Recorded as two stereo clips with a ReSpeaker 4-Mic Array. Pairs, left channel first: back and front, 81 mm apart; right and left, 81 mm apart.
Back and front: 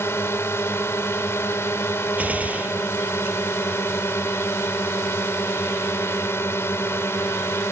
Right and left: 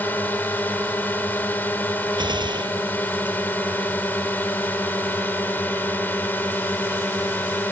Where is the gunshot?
70° left.